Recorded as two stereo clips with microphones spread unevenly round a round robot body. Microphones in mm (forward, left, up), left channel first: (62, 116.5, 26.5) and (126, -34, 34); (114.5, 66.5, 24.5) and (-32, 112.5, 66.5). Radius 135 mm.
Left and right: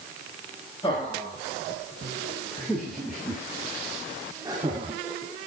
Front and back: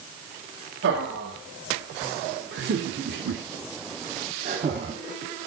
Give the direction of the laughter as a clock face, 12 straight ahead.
6 o'clock.